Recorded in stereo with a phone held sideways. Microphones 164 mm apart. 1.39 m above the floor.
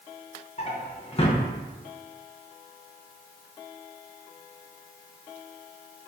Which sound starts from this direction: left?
A drawer, at 0.6 s.